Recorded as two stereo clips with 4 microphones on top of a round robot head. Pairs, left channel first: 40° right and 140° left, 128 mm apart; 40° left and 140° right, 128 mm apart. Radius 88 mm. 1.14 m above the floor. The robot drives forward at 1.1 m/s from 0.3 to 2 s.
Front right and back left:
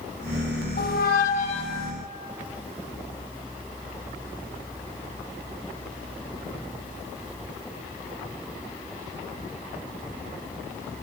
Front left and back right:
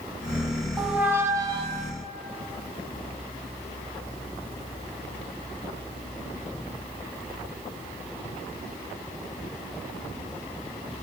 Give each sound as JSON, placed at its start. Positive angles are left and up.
{"t": 0.8, "sound": "a squeak", "azimuth_deg": -50, "distance_m": 1.5}